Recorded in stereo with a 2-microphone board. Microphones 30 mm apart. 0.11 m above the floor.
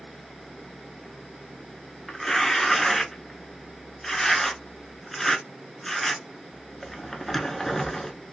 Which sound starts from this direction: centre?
Tearing paper, at 2.1 s.